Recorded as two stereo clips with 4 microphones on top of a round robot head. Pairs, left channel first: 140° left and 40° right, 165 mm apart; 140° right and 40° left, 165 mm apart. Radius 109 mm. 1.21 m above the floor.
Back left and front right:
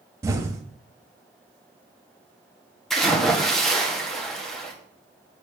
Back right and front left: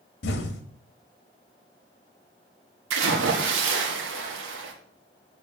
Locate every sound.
0.2 s an explosion: 115° right, 1.0 m
2.9 s a splash: 50° left, 1.4 m